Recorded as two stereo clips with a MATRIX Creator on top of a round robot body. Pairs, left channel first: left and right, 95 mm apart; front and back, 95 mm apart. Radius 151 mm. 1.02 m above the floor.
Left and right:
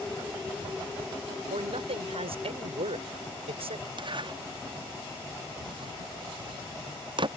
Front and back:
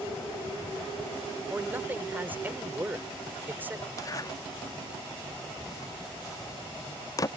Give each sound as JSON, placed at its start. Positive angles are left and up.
{"t": 1.5, "sound": "a man speaking", "azimuth_deg": -110}
{"t": 4.0, "sound": "a zipper", "azimuth_deg": -55}